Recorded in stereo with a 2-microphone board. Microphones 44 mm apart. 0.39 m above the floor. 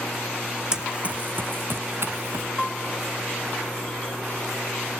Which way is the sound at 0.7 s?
15° right (ahead or behind).